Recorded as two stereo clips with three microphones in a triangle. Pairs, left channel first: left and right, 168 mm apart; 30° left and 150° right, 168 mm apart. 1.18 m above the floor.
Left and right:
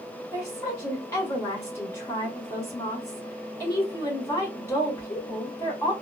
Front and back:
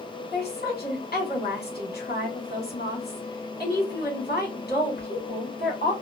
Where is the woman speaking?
15° left, 1.8 m.